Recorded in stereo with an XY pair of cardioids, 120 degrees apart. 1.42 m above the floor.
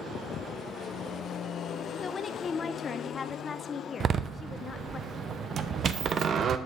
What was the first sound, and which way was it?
A woman speaking, 30° left.